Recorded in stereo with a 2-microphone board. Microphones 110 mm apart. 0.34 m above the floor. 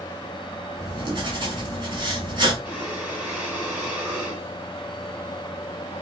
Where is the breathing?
10° right (ahead or behind), 1.5 m.